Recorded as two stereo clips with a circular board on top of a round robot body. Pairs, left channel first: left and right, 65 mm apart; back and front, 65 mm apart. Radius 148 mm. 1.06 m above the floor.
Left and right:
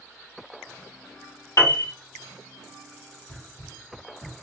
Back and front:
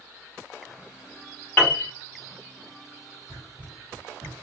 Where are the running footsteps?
105° left, 2.0 m; by 4.3 s 130° left, 1.6 m.